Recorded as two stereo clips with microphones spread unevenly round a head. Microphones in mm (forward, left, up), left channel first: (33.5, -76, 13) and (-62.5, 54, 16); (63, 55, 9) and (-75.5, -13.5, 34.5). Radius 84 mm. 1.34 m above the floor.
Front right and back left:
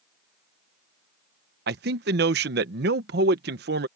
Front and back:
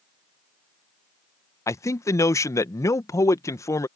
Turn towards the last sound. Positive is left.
turn(degrees=95)